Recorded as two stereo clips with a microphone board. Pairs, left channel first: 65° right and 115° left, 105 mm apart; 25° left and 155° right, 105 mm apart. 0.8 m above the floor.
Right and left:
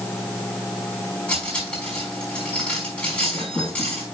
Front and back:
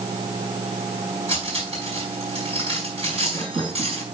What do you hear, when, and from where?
1.3 s cutlery clinking: 145° right, 4.5 m